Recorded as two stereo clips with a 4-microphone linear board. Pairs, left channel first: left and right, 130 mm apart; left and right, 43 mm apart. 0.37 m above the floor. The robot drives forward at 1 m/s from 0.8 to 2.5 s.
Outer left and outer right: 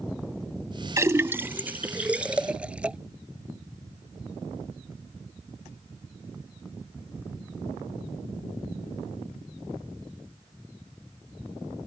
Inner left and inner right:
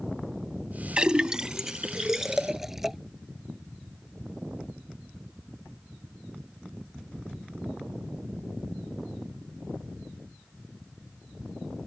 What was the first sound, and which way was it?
A splash, 25° right (ahead or behind).